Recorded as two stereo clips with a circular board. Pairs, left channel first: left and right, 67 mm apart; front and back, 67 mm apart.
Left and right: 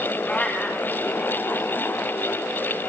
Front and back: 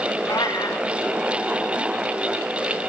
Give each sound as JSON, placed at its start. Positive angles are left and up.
{"t": 0.3, "sound": "a cat meowing", "azimuth_deg": 20, "distance_m": 4.5}